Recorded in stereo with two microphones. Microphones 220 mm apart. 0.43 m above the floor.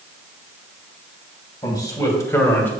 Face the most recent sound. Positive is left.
turn(degrees=10)  # may be behind; listen again after turning